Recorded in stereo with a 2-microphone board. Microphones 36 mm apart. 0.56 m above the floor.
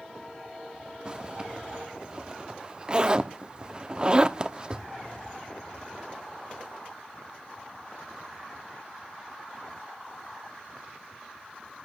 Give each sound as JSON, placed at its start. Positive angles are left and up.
{"t": 1.1, "sound": "a zipper", "side_deg": -30, "distance_m": 0.9}